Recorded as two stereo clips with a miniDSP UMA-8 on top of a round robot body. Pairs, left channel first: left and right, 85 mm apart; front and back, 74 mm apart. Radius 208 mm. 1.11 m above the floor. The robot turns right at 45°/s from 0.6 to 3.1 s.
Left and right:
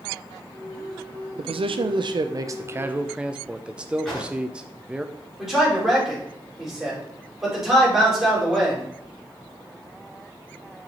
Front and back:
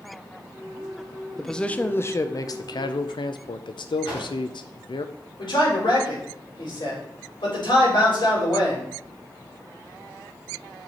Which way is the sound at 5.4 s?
5° right.